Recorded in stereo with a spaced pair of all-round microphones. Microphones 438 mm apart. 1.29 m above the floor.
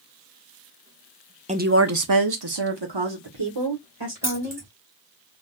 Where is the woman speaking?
15° right (ahead or behind), 0.6 m; by 4.7 s 75° right (ahead or behind), 2 m.